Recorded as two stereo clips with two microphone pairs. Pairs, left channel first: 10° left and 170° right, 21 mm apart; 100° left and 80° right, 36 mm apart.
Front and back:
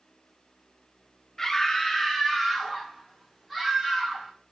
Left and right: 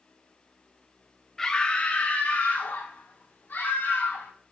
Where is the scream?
50° left, 0.6 m; by 4.3 s 105° left, 1.8 m.